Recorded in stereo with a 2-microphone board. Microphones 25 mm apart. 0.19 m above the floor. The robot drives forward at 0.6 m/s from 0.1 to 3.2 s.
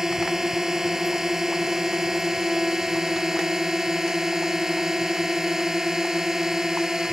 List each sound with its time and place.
0.0 s a drone: 25° right (ahead or behind)